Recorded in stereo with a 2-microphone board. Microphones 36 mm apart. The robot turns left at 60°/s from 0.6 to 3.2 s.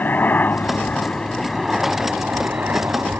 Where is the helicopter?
65° left; by 3.2 s 90° right.